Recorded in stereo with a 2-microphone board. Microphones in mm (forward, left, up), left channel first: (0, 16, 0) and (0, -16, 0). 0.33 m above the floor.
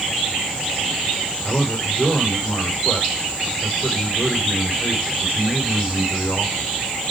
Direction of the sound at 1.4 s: 55° left (ahead or behind).